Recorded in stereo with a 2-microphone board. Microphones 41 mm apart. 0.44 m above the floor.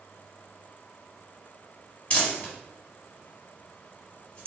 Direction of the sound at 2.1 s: 25° left (ahead or behind).